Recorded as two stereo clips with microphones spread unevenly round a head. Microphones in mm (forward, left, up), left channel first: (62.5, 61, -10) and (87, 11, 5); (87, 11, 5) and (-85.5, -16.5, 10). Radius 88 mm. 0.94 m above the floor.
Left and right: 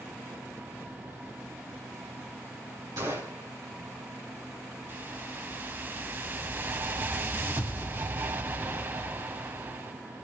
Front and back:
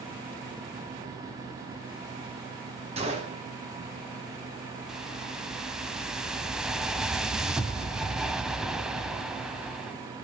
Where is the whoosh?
85° right, 1.2 m.